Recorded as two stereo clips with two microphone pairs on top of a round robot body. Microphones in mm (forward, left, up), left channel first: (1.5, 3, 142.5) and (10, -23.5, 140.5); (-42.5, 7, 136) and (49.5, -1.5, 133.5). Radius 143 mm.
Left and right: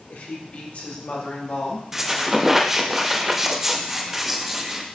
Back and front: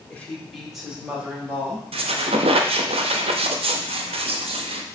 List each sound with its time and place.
0.1 s a woman speaking: 100° left, 1.9 m; by 1.8 s 60° left, 3 m
1.9 s a squeak: 5° left, 0.7 m